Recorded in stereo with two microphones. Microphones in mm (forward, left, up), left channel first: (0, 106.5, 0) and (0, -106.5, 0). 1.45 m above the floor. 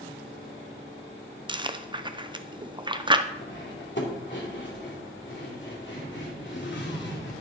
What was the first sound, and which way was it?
Chewing, 20° right (ahead or behind).